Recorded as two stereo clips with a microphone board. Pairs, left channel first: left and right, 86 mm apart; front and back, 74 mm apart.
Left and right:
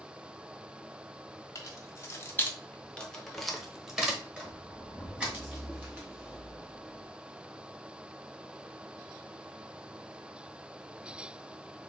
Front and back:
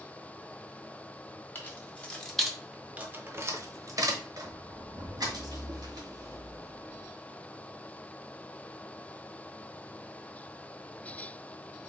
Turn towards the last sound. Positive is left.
turn(degrees=-155)